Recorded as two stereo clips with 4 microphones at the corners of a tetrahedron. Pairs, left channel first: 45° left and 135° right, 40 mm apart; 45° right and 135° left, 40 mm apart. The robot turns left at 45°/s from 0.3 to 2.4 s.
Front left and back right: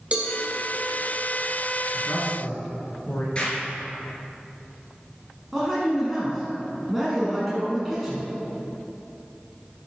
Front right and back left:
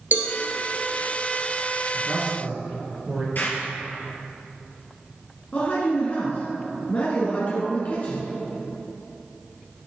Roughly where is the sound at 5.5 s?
Ahead right.